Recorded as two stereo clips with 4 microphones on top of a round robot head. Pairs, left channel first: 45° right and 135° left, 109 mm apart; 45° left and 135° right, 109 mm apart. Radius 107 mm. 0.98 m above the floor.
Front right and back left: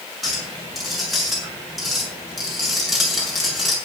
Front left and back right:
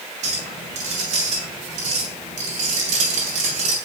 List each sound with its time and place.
0.2 s a clink: 135° right, 7 m